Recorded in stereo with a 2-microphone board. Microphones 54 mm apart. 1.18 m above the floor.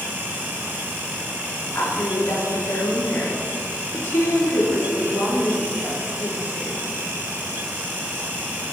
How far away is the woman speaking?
About 2.5 m.